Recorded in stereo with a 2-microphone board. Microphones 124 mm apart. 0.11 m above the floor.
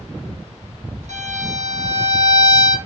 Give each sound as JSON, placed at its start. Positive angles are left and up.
{"t": 1.1, "sound": "a violin", "side_deg": -80, "distance_m": 2.0}